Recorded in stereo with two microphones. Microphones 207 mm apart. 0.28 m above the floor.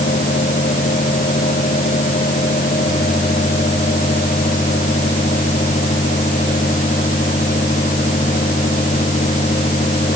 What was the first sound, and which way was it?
Only background noise.